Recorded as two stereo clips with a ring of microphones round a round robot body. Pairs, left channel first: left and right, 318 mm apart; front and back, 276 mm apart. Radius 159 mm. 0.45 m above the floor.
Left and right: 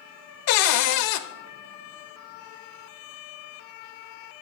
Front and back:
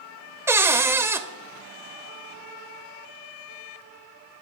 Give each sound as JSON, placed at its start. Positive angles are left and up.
{"t": 0.5, "sound": "a cupboard door", "azimuth_deg": 100, "distance_m": 0.7}